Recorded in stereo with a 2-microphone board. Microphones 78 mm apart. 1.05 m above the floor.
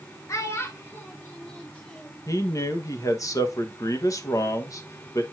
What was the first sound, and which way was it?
A child speaking, 40° left (ahead or behind).